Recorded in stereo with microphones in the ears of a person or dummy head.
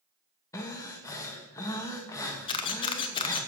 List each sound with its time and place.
0.5 s breathing: 20° left (ahead or behind), 1.4 m
2.5 s a camera shutter: 30° left (ahead or behind), 0.9 m